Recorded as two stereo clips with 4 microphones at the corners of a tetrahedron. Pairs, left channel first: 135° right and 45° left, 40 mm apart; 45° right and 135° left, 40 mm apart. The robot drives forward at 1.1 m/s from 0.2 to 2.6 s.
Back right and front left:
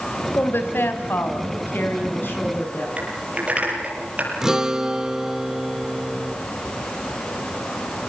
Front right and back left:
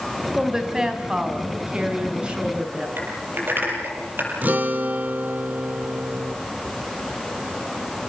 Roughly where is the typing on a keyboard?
Left.